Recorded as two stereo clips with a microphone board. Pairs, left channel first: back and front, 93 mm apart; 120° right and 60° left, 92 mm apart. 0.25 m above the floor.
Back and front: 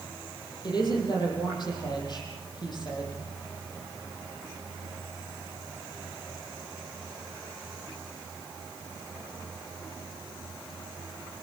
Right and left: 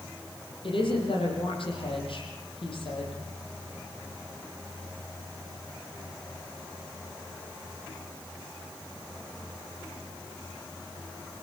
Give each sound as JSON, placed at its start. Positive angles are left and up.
{"t": 0.6, "sound": "a woman speaking", "azimuth_deg": -140, "distance_m": 9.0}